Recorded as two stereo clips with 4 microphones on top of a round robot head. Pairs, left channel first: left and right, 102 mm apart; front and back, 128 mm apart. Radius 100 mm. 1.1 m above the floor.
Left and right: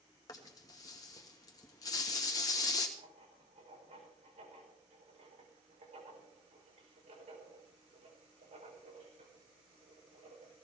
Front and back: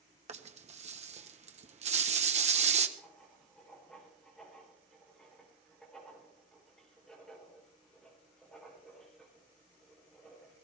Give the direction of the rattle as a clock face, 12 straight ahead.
7 o'clock.